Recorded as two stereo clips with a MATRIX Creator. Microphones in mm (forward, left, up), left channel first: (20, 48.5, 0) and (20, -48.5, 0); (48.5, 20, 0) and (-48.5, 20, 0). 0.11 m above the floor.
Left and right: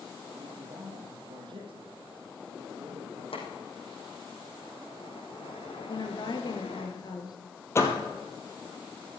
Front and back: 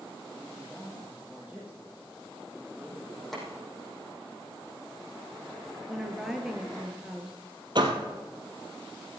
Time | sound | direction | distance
0.4 | a man speaking | 95° right | 3 m
3.3 | boiling | 90° left | 4.5 m
5.9 | a woman speaking | 95° left | 1.7 m
7.8 | a door slam | 150° left | 1.8 m